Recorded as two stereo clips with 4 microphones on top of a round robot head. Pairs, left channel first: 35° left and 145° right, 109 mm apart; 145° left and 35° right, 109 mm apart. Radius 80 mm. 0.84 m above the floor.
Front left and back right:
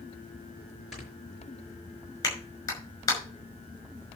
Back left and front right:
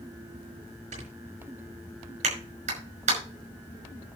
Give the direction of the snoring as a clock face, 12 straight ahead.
2 o'clock.